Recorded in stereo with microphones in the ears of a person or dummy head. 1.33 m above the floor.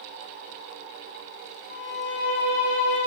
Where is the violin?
50° left (ahead or behind), 2.5 m.